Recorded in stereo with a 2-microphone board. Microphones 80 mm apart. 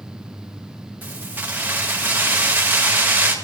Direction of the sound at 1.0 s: 25° right (ahead or behind).